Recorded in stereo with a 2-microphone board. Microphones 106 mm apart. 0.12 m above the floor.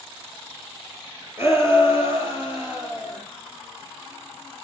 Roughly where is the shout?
Right.